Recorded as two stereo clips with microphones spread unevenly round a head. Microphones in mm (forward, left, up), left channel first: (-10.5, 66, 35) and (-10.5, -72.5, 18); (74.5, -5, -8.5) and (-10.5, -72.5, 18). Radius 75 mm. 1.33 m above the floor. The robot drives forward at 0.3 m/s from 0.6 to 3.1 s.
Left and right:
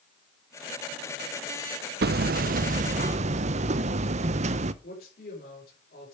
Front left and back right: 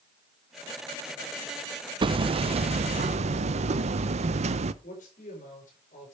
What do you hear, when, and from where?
2.0 s hammering: 105° right, 0.5 m; by 4.7 s 135° right, 0.7 m
4.8 s a man speaking: 65° left, 4.5 m